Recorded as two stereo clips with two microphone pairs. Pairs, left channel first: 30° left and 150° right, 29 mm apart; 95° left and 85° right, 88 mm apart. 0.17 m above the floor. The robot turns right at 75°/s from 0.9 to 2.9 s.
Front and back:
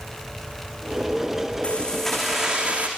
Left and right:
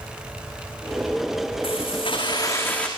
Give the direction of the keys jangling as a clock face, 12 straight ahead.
9 o'clock.